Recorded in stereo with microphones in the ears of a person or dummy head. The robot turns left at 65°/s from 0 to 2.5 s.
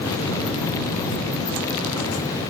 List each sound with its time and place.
Only background noise.